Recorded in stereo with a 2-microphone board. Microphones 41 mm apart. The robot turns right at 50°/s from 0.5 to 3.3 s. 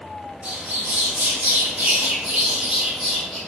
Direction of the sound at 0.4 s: 135° right.